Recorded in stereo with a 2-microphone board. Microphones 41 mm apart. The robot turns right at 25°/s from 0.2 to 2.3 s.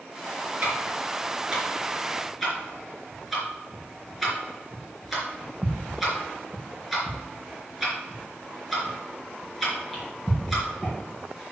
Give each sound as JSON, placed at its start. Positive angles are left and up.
{"t": 0.6, "sound": "ticking", "side_deg": -40, "distance_m": 4.0}